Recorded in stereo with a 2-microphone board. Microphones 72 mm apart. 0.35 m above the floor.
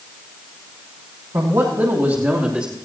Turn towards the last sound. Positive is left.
turn(degrees=-10)  # may be behind; listen again after turning